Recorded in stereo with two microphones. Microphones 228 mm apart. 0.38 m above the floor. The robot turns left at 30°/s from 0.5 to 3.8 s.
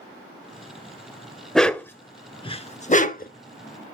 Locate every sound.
1.6 s a dog barking: centre (ahead or behind), 0.5 m; by 3.3 s 40° left (ahead or behind), 0.5 m